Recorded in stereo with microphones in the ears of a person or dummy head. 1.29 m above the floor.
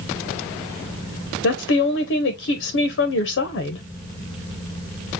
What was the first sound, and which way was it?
A woman speaking, 60° left (ahead or behind).